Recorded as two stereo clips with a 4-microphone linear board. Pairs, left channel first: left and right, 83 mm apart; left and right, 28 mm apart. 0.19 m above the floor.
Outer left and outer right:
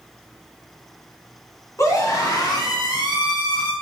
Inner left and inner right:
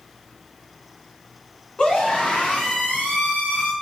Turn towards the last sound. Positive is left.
turn(degrees=65)  # may be behind; listen again after turning